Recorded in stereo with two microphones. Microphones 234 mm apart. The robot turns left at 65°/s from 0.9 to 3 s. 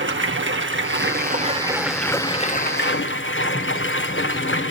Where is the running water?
110° right, 1.0 m; by 4.7 s 110° left, 1.0 m.